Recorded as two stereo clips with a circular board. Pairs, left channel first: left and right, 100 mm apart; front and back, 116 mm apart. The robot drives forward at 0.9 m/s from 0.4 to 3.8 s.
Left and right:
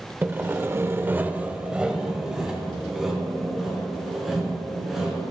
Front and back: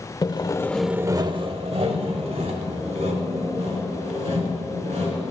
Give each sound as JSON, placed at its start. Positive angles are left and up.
{"t": 0.2, "sound": "sawing", "azimuth_deg": -30, "distance_m": 0.6}